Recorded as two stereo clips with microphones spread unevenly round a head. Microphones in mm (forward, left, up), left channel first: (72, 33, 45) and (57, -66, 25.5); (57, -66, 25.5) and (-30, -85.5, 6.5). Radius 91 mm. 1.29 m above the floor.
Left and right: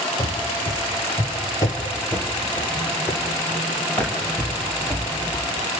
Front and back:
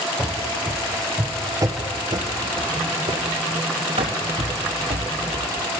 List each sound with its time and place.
0.2 s running footsteps: 75° left, 1.7 m; by 5.8 s 170° left, 3 m